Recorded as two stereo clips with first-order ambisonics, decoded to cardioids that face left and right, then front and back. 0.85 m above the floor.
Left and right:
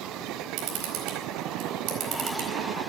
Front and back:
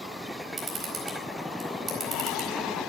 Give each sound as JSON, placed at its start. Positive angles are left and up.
{"t": 0.6, "sound": "a camera shutter", "azimuth_deg": -110, "distance_m": 4.0}